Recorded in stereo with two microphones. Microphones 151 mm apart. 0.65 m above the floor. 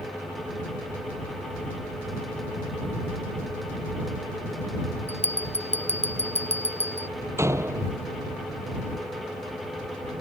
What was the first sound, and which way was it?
A bell, 45° left (ahead or behind).